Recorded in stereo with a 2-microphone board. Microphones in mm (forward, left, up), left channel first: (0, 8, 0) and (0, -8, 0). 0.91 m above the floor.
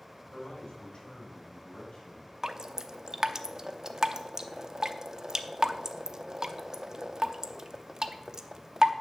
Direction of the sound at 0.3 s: 70° left (ahead or behind).